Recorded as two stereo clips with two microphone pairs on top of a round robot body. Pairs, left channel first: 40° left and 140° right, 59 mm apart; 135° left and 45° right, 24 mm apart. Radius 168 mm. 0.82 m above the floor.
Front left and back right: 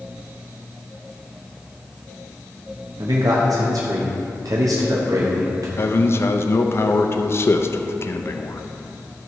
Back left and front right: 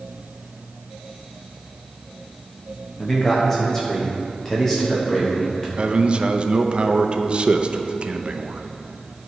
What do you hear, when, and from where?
3.0 s a man speaking: 150° right, 0.9 m
5.8 s a man speaking: 5° left, 0.7 m